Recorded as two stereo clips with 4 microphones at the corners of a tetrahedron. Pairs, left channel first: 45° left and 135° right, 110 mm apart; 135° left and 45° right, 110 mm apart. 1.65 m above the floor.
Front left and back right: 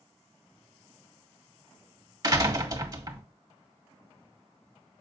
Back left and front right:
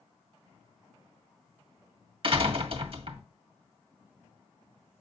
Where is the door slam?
80° right, 1.7 m.